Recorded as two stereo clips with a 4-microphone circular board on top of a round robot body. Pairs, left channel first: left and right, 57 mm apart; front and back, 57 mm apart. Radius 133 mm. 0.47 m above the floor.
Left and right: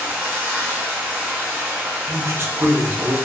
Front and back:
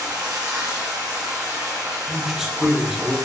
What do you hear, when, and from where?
0.0 s running water: 150° right, 1.2 m
2.1 s a man speaking: 100° right, 0.9 m